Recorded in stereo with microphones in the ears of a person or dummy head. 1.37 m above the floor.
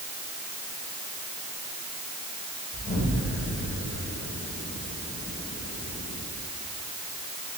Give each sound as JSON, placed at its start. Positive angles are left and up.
{"t": 2.7, "sound": "an explosion", "side_deg": 20, "distance_m": 6.0}